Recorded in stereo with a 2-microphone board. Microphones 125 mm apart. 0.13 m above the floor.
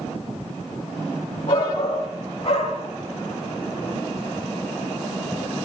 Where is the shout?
50° left (ahead or behind), 4 m.